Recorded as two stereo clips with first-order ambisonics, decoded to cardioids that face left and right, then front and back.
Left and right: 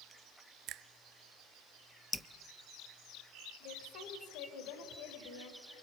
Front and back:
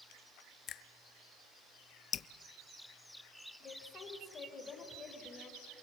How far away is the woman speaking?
About 3.5 m.